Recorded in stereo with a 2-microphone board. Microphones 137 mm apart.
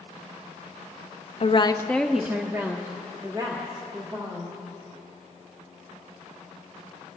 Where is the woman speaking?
50° left (ahead or behind), 0.6 m; by 4.6 s 35° right (ahead or behind), 2.5 m.